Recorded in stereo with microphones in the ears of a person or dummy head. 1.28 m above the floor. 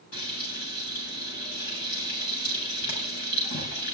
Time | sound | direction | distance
0.1 | frying | 60° left (ahead or behind) | 8 m